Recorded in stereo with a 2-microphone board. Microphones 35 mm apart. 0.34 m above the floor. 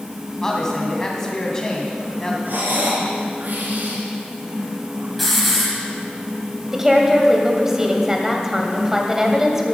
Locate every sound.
0.4 s a man speaking: 15° left (ahead or behind), 2.5 m
2.5 s breathing: 65° right (ahead or behind), 2.5 m
5.2 s a hiss: centre (ahead or behind), 2.5 m
6.7 s a woman speaking: 15° right (ahead or behind), 1.7 m